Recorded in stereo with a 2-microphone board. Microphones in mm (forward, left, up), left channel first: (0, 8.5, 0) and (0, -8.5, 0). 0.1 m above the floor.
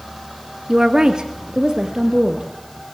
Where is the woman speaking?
35° right (ahead or behind), 1.6 m.